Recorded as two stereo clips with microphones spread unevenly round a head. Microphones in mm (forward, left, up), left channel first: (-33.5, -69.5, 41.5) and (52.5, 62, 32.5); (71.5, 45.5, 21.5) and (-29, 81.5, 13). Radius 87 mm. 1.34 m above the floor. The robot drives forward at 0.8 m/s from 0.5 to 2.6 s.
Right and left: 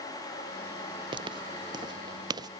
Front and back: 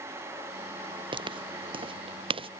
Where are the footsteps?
120° left; by 2.5 s 125° left.